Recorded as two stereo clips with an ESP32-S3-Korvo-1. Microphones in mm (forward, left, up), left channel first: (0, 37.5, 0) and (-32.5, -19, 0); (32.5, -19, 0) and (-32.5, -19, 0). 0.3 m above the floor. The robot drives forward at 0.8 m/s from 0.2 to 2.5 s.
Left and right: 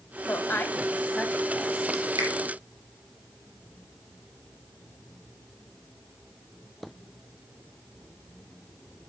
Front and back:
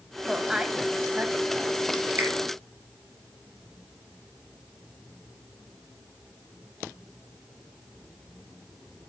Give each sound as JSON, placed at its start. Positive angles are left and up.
{"t": 0.3, "sound": "a woman speaking", "azimuth_deg": 95, "distance_m": 1.5}
{"t": 2.2, "sound": "a finger snap", "azimuth_deg": -130, "distance_m": 4.5}